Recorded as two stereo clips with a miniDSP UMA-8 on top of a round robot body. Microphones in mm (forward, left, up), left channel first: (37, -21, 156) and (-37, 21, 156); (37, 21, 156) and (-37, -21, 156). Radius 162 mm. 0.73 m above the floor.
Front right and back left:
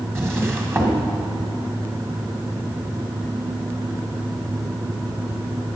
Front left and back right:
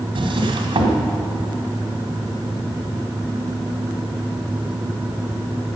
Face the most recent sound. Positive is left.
turn(degrees=-145)